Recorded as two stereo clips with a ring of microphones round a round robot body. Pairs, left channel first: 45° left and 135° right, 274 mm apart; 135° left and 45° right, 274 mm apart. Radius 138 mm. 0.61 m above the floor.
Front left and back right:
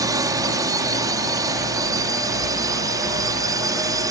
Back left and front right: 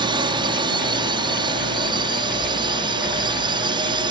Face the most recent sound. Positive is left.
turn(degrees=-80)